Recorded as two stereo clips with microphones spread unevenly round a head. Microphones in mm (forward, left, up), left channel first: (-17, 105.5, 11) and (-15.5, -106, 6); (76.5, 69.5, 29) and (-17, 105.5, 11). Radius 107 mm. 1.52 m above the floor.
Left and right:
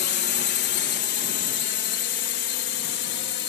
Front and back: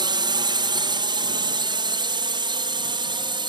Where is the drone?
125° left.